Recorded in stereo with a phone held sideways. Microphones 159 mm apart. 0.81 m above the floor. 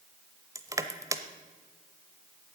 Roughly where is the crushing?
Centre.